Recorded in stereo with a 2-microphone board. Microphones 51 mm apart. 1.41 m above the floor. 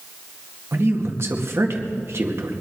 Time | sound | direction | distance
0.7 | a man speaking | 55° right (ahead or behind) | 2 m